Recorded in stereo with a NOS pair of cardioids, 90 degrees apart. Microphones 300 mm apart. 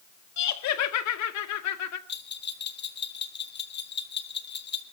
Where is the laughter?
65° left, 2 m.